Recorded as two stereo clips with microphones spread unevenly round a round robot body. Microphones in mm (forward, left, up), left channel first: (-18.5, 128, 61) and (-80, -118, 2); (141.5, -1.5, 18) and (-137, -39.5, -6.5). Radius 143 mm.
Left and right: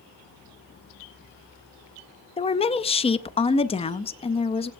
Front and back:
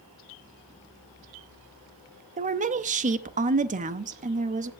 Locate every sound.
2.4 s a woman speaking: 150° left, 0.7 m